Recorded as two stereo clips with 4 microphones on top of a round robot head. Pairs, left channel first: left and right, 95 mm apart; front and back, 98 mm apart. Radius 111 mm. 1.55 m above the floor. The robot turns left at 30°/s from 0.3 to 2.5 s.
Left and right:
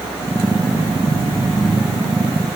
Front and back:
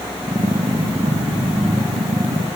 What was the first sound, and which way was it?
Only background noise.